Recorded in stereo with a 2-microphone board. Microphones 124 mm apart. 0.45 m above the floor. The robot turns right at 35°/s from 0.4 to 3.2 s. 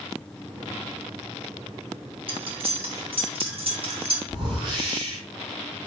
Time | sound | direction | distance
2.3 | cutlery clinking | 45° right (ahead or behind) | 0.7 m
4.3 | a whoosh | 40° right (ahead or behind) | 1.3 m